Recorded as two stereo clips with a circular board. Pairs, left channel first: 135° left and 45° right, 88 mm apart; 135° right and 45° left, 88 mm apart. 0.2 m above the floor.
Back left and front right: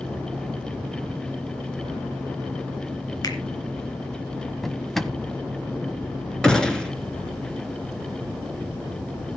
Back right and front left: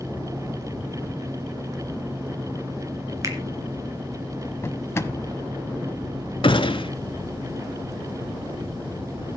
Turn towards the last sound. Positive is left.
turn(degrees=-145)